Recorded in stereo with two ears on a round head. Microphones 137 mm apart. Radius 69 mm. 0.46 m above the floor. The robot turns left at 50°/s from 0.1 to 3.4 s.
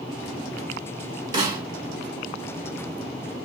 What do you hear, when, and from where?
1.3 s a snare drum: 30° right (ahead or behind), 1.8 m; by 1.6 s 20° right (ahead or behind), 1.8 m